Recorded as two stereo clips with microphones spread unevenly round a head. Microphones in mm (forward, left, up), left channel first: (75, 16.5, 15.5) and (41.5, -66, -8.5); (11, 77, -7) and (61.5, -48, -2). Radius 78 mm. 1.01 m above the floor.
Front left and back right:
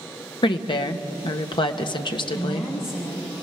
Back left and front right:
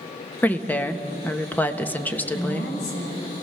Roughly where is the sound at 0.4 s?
Ahead left.